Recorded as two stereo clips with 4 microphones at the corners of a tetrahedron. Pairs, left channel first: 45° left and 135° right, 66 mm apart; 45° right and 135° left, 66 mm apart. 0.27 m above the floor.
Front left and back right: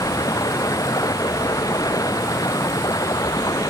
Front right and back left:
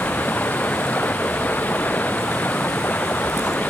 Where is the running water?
20° left.